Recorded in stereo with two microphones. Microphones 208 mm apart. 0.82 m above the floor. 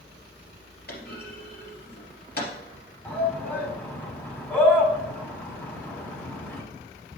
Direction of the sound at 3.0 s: 10° left (ahead or behind).